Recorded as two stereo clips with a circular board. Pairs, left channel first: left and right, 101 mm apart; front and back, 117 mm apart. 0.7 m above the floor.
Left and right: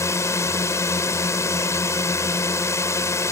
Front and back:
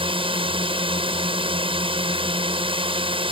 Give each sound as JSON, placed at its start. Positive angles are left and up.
{"t": 0.0, "sound": "a drone", "azimuth_deg": 145}